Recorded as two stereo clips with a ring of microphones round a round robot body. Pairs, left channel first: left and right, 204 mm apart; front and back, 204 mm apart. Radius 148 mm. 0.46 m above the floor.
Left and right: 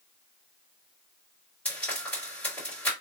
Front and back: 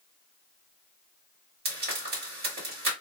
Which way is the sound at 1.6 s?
170° left.